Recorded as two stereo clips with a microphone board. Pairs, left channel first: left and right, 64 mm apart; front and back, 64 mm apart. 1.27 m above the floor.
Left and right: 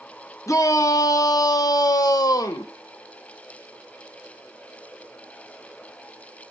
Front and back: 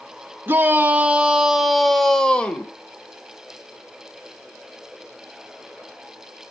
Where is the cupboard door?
No cupboard door in this recording.